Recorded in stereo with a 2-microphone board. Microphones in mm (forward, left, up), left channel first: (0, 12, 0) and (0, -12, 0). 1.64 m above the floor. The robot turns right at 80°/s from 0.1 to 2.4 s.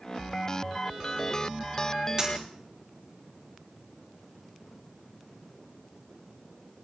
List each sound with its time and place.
2.2 s a dropped coin: 30° right (ahead or behind), 5.5 m; by 2.5 s 15° right (ahead or behind), 5.5 m